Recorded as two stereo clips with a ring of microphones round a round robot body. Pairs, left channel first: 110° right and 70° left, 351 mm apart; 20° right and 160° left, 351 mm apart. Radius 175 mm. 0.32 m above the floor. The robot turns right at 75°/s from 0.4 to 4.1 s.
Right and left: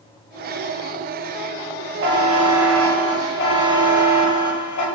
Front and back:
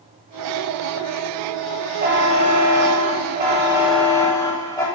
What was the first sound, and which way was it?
A buzzer, 105° left.